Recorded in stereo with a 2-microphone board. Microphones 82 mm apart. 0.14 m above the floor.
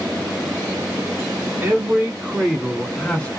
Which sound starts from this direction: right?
A man speaking, at 1.6 s.